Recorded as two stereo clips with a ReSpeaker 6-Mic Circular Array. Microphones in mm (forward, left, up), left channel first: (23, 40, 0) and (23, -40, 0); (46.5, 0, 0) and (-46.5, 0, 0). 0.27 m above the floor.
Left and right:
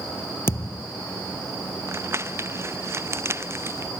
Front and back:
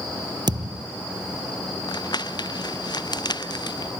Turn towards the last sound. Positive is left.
turn(degrees=-35)